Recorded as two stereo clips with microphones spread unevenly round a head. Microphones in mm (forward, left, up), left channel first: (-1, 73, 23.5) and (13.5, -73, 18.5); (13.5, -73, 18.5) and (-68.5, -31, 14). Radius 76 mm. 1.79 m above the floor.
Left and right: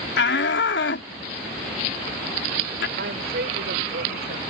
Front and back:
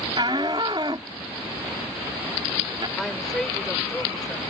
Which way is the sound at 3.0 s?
110° right.